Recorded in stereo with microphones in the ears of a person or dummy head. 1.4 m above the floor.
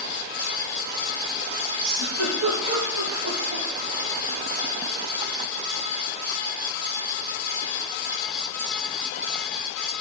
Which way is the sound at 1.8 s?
80° right.